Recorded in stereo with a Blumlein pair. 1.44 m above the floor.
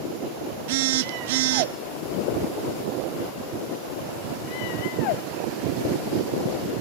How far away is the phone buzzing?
About 0.6 m.